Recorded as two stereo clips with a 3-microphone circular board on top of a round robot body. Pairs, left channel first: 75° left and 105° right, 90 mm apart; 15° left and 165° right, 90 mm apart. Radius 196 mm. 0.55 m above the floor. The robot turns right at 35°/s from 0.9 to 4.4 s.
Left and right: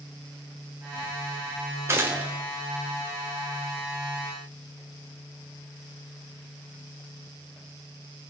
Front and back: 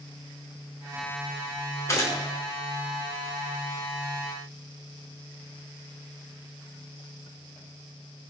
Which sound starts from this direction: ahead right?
A gunshot, at 1.9 s.